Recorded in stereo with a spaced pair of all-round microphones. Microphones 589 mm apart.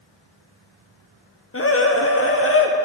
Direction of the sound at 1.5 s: 25° left (ahead or behind).